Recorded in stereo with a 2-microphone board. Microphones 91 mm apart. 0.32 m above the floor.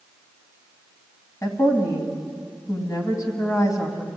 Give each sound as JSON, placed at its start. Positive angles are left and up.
{"t": 1.4, "sound": "a woman speaking", "side_deg": 40, "distance_m": 2.5}